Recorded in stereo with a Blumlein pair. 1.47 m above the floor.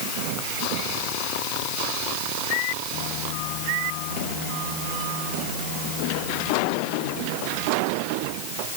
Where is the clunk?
I don't hear a clunk.